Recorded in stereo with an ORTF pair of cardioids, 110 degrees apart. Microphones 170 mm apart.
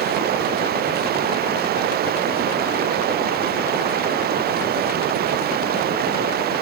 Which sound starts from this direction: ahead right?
Running water, at 0.0 s.